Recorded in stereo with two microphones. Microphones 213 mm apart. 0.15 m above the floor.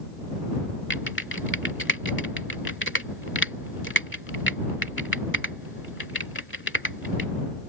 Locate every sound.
0.9 s typing on a keyboard: 60° left (ahead or behind)